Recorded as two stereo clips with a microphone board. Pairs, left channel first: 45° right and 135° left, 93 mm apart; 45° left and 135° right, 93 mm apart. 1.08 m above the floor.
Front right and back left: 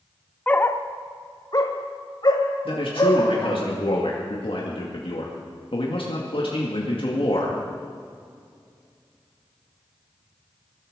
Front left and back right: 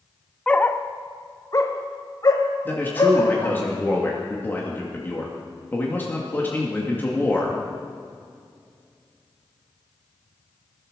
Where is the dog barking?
10° right, 0.6 m; by 3.6 s 5° right, 2.5 m.